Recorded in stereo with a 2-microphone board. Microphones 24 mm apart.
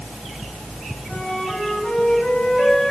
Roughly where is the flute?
Left.